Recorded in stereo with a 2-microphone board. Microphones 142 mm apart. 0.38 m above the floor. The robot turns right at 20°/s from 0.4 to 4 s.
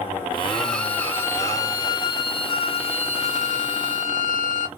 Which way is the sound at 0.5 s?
Straight ahead.